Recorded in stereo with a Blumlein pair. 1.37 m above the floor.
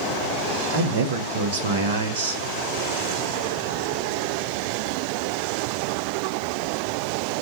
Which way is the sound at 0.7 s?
60° right.